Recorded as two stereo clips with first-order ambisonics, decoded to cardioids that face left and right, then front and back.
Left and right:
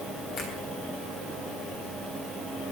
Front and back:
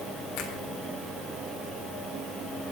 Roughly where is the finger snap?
Ahead left.